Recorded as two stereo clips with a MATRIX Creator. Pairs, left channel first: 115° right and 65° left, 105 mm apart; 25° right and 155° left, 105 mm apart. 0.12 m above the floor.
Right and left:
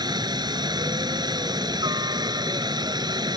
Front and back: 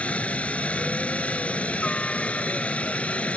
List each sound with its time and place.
0.0 s a helicopter: 50° left